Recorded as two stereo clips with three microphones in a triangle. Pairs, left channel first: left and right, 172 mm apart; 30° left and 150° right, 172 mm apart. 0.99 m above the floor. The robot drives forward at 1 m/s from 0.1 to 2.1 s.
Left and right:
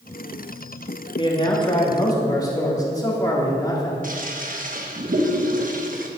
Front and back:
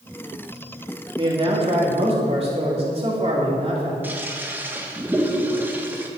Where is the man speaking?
150° left, 2 m; by 3.9 s 160° left, 3 m.